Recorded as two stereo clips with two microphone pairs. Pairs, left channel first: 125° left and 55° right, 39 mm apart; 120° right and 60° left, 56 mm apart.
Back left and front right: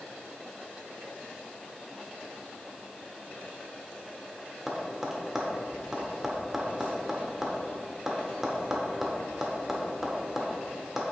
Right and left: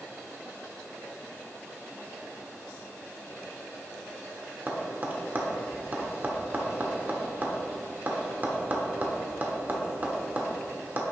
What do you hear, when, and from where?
4.7 s tapping: 25° left, 1.0 m